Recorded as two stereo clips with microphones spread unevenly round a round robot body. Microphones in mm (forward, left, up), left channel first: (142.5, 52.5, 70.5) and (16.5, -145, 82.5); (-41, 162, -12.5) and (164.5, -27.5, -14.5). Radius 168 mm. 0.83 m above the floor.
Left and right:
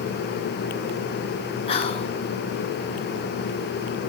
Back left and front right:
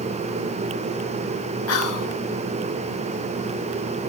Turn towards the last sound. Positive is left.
turn(degrees=120)